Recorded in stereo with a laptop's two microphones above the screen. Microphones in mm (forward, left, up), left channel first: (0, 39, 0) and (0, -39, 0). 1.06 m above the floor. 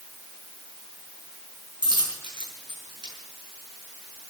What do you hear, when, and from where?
1.8 s a dropped coin: 75° right (ahead or behind), 5.5 m